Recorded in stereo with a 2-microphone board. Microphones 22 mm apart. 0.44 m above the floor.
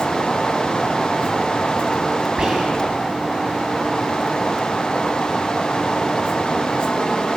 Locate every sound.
2.4 s whispering: 35° right (ahead or behind), 3.5 m